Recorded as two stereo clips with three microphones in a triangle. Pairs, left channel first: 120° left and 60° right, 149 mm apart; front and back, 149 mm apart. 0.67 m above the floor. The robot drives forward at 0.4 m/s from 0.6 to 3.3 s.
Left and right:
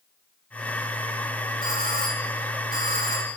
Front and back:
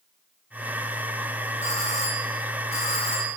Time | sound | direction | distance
1.6 | a doorbell | 40° right | 7.5 m